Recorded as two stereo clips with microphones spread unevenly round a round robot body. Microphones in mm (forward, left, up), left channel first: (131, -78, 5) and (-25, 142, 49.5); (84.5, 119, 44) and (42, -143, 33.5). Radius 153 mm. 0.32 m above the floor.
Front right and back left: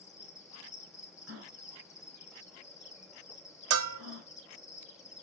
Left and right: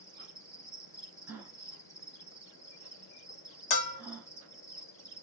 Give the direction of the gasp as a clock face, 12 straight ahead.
6 o'clock.